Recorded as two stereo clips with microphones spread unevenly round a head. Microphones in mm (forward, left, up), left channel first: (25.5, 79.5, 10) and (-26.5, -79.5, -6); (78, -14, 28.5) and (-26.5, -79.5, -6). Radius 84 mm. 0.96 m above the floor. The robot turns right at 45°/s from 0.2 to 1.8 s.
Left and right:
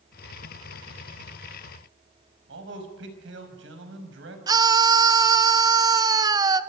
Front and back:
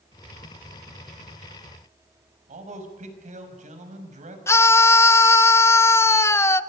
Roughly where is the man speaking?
Behind right.